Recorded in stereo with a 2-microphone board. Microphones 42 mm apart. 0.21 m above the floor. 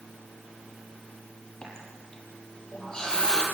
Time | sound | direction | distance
1.6 | a running tap | 20° left (ahead or behind) | 4.5 m